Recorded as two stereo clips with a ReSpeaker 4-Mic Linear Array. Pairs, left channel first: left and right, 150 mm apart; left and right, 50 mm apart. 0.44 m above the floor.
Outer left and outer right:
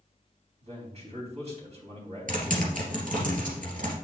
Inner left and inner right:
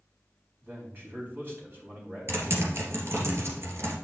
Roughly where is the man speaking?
Right.